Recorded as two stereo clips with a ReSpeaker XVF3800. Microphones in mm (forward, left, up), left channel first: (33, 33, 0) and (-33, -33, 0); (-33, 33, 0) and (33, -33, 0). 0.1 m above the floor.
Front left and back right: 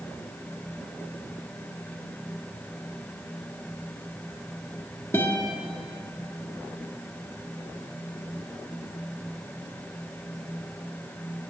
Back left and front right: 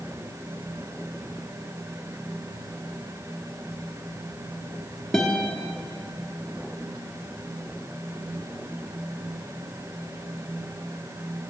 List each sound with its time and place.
5.1 s a guitar: 60° left, 0.8 m